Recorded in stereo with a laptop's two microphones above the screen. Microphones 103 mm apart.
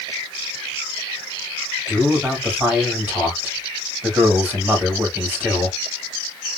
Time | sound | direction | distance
1.9 | a man speaking | 15° right (ahead or behind) | 2 m